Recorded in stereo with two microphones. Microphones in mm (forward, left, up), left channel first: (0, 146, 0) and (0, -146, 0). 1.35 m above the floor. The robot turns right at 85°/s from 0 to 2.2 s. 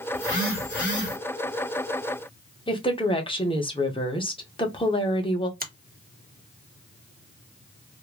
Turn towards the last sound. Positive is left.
turn(degrees=-30)  # may be behind; listen again after turning